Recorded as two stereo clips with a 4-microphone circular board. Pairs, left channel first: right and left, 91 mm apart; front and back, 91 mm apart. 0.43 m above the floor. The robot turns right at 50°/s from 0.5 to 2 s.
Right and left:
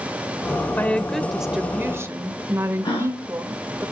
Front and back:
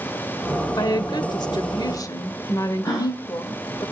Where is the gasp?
55° right, 7 m.